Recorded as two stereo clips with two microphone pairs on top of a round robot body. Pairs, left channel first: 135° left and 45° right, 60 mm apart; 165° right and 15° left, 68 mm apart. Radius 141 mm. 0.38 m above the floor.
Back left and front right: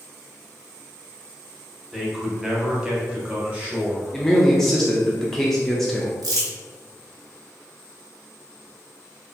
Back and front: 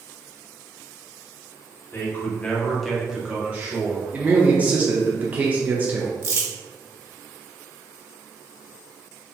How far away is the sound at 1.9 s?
About 1.7 m.